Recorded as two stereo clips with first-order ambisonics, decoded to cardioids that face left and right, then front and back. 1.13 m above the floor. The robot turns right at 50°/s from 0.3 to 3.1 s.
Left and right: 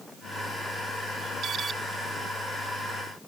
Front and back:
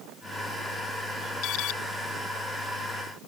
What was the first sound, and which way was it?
An alarm, 35° right.